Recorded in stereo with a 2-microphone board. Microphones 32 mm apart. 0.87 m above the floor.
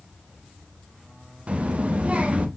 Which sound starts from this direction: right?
A child speaking, at 1.5 s.